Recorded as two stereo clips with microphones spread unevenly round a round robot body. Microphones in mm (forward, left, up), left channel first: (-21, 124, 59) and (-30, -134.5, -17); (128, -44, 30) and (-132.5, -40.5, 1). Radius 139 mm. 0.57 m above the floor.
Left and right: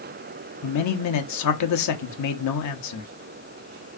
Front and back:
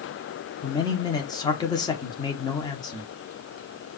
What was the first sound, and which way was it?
A man speaking, 75° left.